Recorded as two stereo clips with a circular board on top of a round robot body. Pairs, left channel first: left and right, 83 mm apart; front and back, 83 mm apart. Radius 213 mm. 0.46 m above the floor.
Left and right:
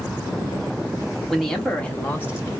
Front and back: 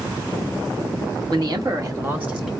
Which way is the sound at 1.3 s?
Straight behind.